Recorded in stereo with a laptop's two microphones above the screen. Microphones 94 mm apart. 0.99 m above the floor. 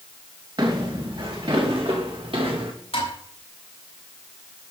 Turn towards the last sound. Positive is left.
turn(degrees=75)  # may be behind; listen again after turning